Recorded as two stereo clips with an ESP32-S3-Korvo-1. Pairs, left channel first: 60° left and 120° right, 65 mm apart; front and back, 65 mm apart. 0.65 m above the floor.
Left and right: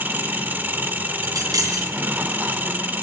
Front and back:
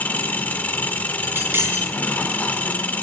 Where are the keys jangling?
130° right, 3.5 m.